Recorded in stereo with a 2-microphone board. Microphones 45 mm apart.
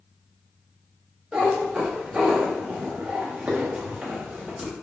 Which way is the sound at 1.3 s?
15° right (ahead or behind).